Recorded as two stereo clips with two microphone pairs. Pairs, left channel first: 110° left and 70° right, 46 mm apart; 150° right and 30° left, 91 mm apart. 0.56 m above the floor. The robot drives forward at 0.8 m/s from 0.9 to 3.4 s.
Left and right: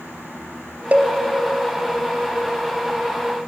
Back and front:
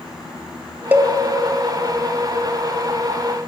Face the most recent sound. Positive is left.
turn(degrees=-155)